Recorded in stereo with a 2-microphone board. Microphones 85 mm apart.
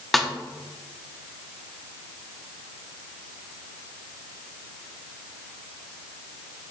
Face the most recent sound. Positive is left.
turn(degrees=0)  # may be behind; listen again after turning